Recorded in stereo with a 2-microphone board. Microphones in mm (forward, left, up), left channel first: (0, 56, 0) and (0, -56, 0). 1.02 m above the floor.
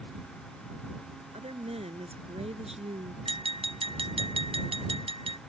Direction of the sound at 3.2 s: 50° right (ahead or behind).